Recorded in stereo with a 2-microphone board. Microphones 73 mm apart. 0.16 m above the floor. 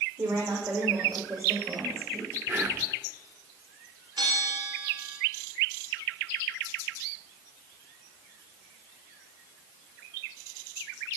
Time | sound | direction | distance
0.2 | a woman speaking | 50° right (ahead or behind) | 8 m
2.5 | whispering | 25° right (ahead or behind) | 1.8 m
4.2 | a bell | 70° right (ahead or behind) | 9 m